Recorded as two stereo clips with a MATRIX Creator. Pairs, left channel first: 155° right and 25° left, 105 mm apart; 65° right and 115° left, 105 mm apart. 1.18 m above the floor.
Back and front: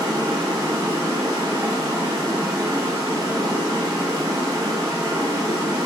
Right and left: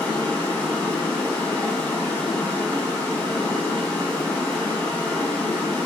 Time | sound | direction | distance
0.0 | running water | straight ahead | 0.8 m